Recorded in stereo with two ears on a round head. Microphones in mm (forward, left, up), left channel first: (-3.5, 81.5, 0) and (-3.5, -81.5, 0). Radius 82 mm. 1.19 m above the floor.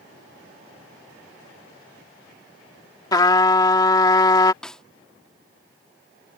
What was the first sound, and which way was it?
A trumpet, 20° left (ahead or behind).